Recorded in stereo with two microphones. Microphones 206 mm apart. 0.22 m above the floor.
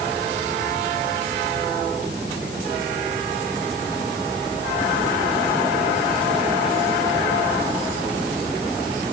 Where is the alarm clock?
I don't hear an alarm clock.